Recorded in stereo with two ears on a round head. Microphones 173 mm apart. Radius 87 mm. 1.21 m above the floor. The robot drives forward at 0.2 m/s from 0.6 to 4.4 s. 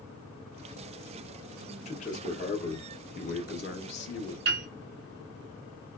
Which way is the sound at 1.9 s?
35° left (ahead or behind).